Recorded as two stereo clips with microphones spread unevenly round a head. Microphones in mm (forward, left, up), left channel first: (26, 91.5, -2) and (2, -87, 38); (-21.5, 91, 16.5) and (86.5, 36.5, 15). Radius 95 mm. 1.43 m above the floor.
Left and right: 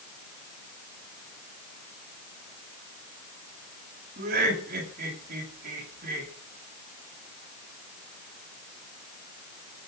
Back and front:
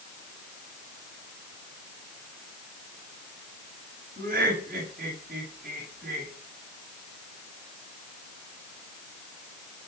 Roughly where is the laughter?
Ahead right.